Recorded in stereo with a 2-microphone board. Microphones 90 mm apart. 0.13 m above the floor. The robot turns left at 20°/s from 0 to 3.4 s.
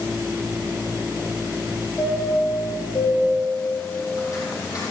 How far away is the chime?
About 4 m.